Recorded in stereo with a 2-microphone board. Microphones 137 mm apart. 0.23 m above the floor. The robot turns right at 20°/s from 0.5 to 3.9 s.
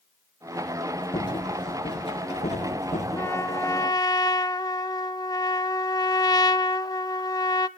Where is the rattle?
30° left (ahead or behind), 4.5 m; by 3.0 s 65° left (ahead or behind), 4.5 m.